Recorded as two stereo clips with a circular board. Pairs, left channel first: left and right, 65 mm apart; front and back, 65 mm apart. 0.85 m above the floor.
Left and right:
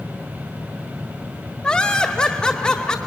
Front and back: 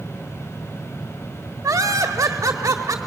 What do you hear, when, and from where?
1.6 s laughter: 160° left, 1.5 m